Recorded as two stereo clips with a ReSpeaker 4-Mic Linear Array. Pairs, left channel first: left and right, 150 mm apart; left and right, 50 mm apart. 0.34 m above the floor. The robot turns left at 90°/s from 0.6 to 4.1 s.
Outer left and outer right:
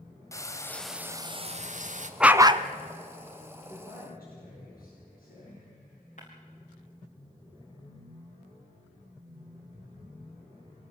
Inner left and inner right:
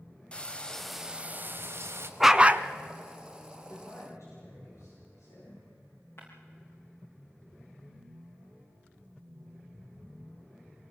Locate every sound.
0.3 s frying: 25° left, 1.4 m; by 2.1 s 110° right, 1.4 m
2.2 s a dog barking: 5° right, 0.8 m; by 2.6 s 45° right, 0.8 m
3.7 s a man speaking: 125° left, 6 m; by 5.6 s 85° left, 6 m
6.2 s breaking glass: 55° left (ahead or behind), 5.5 m